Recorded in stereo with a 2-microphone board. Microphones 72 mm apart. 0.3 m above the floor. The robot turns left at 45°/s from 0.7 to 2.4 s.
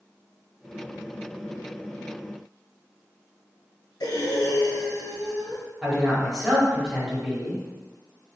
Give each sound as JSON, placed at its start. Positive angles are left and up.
{"t": 4.0, "sound": "breathing", "side_deg": 75, "distance_m": 0.8}
{"t": 5.8, "sound": "a man speaking", "side_deg": 0, "distance_m": 1.1}